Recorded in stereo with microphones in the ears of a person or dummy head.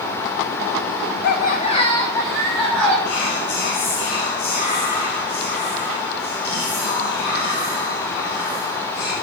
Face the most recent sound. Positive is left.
turn(degrees=55)  # may be behind; listen again after turning